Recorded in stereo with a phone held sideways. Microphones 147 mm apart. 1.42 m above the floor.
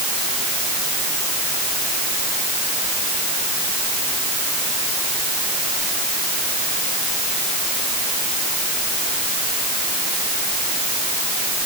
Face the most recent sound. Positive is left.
No sound to turn to.